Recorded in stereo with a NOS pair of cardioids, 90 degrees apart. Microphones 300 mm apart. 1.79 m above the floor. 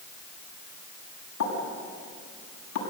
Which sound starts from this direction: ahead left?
A pop, at 1.4 s.